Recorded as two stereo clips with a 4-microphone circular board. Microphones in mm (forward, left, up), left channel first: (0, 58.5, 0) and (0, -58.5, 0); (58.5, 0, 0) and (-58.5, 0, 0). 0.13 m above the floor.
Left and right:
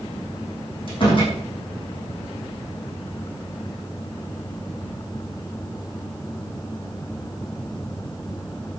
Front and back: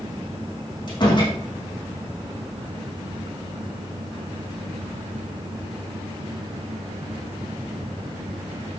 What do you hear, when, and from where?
0.9 s a door slam: 50° left, 5.5 m